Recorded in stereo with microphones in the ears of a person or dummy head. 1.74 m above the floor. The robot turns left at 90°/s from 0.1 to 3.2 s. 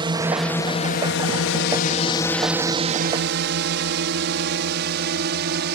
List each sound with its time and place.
0.0 s a drone: 25° right (ahead or behind); by 5.8 s 60° right (ahead or behind)